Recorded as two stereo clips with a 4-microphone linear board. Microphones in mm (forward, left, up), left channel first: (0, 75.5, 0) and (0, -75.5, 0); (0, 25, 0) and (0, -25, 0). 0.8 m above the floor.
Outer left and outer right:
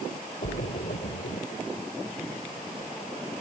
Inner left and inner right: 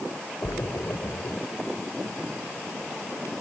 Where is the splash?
80° left.